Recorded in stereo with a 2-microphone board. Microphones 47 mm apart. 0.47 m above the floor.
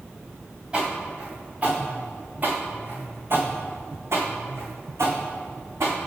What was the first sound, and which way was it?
Footsteps, 20° right (ahead or behind).